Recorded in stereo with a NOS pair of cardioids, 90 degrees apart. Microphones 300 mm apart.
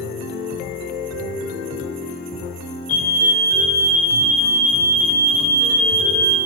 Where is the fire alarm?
55° left, 6.5 m.